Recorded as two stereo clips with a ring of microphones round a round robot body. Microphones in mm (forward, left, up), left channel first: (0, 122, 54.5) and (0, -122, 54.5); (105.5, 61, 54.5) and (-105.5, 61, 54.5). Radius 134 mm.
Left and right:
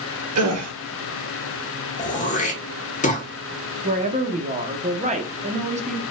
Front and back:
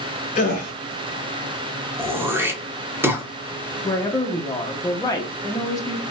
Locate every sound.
0.3 s a gasp: 60° right, 0.6 m
2.0 s throat clearing: 110° left, 0.8 m
3.8 s a woman speaking: 60° right, 0.7 m